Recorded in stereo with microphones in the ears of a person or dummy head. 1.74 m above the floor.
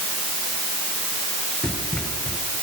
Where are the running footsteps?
10° left (ahead or behind), 7.5 m.